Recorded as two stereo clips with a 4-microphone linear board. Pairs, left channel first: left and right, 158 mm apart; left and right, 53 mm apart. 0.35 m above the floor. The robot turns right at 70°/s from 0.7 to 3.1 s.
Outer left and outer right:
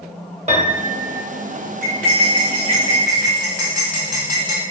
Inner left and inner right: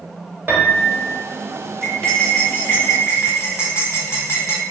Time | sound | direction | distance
0.5 | a piano | 85° right | 0.8 m
1.8 | cutlery clinking | 5° right | 1.4 m